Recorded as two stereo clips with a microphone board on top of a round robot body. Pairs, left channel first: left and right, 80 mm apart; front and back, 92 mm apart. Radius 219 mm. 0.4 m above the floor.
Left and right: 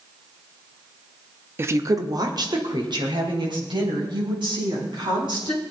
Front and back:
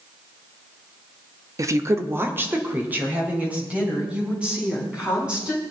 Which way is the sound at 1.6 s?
140° right.